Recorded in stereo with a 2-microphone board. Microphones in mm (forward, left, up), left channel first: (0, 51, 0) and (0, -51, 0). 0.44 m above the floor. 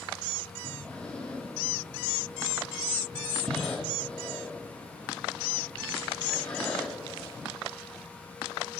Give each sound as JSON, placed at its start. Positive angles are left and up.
{"t": 0.6, "sound": "breathing", "side_deg": 10, "distance_m": 2.5}